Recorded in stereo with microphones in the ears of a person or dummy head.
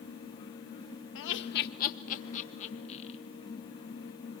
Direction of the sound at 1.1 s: 75° left (ahead or behind).